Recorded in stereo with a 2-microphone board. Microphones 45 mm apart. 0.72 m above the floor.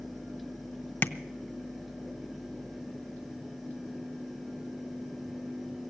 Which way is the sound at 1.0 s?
40° left (ahead or behind).